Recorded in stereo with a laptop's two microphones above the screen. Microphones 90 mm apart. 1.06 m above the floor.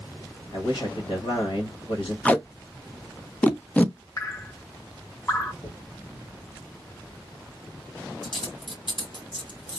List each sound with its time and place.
0.5 s a man speaking: 75° left (ahead or behind), 1.2 m
2.2 s tape being pulled: 15° left (ahead or behind), 0.5 m
4.2 s dripping: 35° left (ahead or behind), 0.8 m
5.6 s a dropped coin: 65° left (ahead or behind), 1.7 m